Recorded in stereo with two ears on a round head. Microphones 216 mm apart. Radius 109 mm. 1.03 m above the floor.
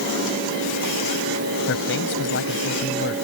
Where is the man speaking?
50° left (ahead or behind).